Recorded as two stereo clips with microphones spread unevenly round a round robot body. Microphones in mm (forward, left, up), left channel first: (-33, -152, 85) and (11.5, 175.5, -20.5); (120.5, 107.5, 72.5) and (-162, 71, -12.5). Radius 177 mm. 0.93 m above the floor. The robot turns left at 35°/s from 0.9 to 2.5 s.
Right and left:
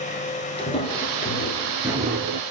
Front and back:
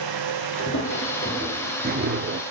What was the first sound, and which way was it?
Footsteps, 35° right.